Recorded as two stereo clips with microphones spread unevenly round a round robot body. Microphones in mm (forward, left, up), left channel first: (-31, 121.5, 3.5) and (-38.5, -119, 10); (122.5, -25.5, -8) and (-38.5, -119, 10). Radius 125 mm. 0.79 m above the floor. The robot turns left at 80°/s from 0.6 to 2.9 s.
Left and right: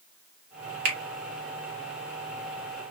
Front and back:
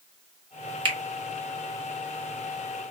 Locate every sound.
0.8 s a finger snap: 85° right, 1.3 m; by 1.0 s 100° right, 1.3 m